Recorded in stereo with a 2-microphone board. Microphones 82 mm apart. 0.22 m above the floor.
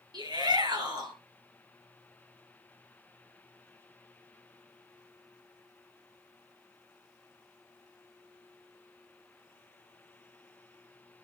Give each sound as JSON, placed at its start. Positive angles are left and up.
{"t": 0.1, "sound": "a shout", "side_deg": -60, "distance_m": 3.5}